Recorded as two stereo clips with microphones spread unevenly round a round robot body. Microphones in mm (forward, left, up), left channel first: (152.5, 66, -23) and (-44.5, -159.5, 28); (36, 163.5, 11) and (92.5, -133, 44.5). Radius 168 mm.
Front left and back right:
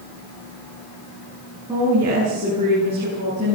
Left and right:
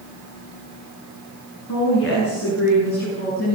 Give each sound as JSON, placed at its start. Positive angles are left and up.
{"t": 1.7, "sound": "a woman speaking", "azimuth_deg": 150, "distance_m": 9.0}